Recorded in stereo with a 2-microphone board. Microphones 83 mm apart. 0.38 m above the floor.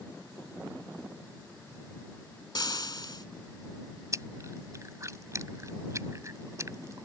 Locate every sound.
2.5 s frying: 55° left (ahead or behind)
4.1 s chewing: 40° right (ahead or behind)